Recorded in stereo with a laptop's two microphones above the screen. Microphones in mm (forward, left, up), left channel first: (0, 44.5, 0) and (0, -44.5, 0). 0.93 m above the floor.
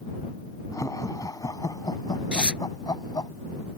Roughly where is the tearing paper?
Centre.